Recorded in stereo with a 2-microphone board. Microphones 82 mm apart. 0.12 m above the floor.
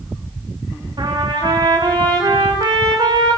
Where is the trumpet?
65° right (ahead or behind), 6.5 m.